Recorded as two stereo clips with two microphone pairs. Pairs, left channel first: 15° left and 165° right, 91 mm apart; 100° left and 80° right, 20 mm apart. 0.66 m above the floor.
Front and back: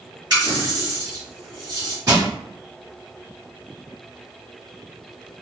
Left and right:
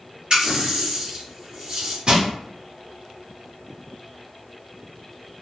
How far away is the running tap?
About 2.0 m.